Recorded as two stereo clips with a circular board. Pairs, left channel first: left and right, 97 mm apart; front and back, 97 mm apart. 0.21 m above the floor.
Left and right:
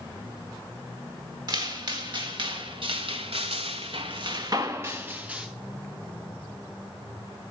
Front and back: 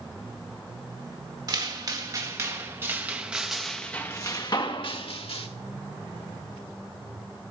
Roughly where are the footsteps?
Behind right.